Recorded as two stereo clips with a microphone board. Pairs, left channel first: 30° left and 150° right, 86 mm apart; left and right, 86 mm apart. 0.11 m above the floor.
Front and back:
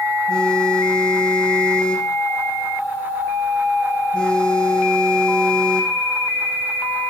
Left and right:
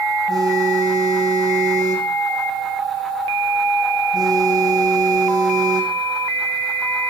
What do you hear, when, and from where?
0.3 s a phone buzzing: 50° right, 6 m